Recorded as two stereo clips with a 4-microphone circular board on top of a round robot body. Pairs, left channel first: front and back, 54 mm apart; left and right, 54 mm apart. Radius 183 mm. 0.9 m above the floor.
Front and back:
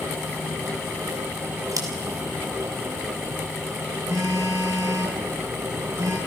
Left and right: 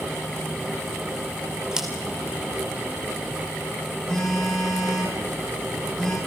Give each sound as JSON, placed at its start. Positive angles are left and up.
{"t": 1.7, "sound": "scissors", "azimuth_deg": -170, "distance_m": 3.0}
{"t": 4.1, "sound": "a phone buzzing", "azimuth_deg": 165, "distance_m": 9.5}